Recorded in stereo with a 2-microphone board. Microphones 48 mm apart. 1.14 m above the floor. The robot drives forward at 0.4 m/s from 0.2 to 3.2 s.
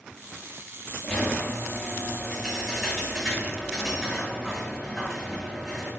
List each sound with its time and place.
1.0 s a squeak: 10° left (ahead or behind), 1.0 m; by 5.9 s 5° left (ahead or behind), 1.8 m